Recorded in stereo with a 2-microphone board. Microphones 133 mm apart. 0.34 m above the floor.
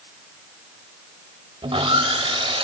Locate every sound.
1.6 s sawing: 45° right (ahead or behind), 1.3 m